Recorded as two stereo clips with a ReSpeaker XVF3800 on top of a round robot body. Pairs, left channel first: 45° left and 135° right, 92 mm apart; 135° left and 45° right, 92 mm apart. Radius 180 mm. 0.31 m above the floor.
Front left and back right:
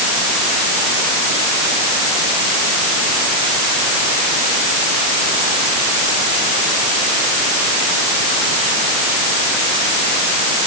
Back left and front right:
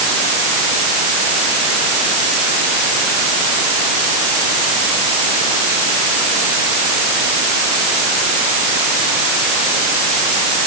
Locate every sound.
Only background noise.